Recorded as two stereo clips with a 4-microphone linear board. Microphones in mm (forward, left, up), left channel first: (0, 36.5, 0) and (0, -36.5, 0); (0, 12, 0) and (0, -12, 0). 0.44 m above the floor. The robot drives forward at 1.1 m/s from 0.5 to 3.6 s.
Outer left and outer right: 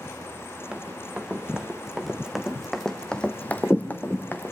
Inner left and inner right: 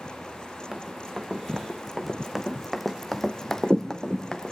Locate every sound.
0.7 s running footsteps: 15° right (ahead or behind), 2.5 m; by 4.5 s 25° left (ahead or behind), 1.7 m